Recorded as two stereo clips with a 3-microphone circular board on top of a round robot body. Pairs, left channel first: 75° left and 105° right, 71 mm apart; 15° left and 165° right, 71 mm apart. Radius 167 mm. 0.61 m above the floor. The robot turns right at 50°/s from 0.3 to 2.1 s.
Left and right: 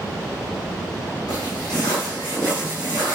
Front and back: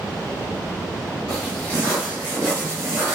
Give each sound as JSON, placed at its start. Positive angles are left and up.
{"t": 1.3, "sound": "footsteps", "azimuth_deg": 60, "distance_m": 0.9}